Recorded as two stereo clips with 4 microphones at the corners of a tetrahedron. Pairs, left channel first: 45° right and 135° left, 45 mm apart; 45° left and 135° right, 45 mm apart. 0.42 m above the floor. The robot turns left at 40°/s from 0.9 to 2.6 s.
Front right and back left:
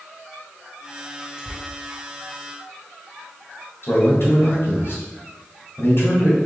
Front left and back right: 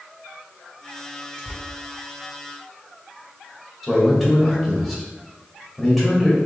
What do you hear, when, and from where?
1.4 s tearing paper: 170° right, 1.0 m; by 1.6 s straight behind, 1.0 m
3.8 s a man speaking: 45° right, 1.9 m